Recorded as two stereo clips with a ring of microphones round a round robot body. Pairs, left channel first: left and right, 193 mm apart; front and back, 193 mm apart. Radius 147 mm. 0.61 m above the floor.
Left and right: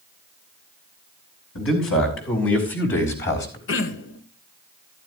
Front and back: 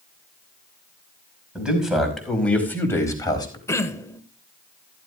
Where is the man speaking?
95° left, 5 m; by 3.6 s 65° left, 4 m.